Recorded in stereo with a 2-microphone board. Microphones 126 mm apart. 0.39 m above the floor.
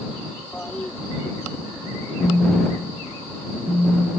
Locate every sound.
0.5 s a toilet flushing: 10° left (ahead or behind)
2.2 s a phone buzzing: 15° right (ahead or behind)